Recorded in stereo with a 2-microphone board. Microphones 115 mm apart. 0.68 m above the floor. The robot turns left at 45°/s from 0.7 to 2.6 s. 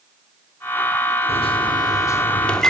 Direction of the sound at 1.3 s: 65° left.